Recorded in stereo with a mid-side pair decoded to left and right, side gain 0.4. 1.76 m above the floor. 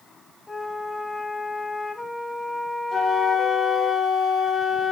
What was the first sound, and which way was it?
A flute, 25° left.